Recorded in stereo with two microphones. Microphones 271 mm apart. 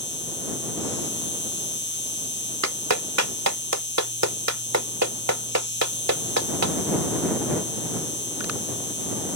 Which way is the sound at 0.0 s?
40° left (ahead or behind).